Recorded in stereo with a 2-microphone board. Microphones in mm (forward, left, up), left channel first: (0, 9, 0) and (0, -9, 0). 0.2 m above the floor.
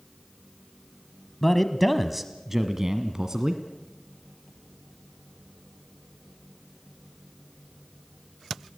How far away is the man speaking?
About 1.1 m.